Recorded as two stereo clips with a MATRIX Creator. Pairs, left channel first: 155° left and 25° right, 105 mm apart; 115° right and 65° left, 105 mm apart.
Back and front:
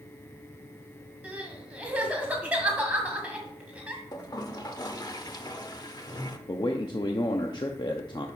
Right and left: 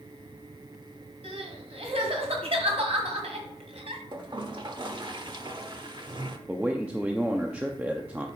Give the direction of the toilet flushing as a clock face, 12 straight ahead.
8 o'clock.